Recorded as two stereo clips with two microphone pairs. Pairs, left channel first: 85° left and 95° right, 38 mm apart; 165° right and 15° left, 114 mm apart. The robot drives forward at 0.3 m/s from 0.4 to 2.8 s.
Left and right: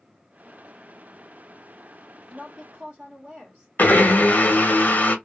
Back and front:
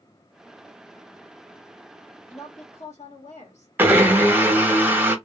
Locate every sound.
2.3 s a woman speaking: 150° right, 1.1 m; by 3.7 s 155° right, 1.2 m
3.8 s a blender: 85° left, 0.6 m